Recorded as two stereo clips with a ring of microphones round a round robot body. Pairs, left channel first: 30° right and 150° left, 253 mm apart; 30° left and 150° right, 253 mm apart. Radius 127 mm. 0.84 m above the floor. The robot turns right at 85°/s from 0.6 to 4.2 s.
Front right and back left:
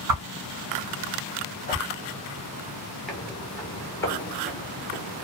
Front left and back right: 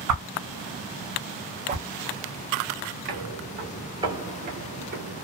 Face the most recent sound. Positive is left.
turn(degrees=-135)